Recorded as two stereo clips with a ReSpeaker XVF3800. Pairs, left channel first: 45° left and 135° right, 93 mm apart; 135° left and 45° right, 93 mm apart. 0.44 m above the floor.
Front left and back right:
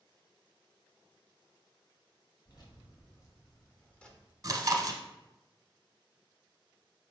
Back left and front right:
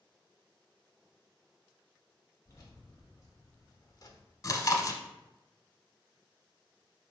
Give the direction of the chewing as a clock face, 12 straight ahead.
6 o'clock.